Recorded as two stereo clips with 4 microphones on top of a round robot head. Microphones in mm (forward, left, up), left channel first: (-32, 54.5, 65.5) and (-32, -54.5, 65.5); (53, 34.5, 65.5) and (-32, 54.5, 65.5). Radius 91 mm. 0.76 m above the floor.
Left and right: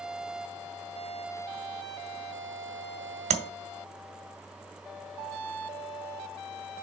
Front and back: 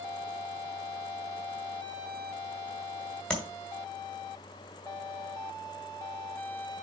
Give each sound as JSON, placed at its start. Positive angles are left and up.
{"t": 3.3, "sound": "tapping", "azimuth_deg": -95, "distance_m": 1.2}